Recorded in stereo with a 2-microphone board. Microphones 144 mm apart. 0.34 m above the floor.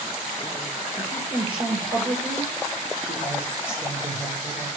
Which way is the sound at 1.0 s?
40° right (ahead or behind).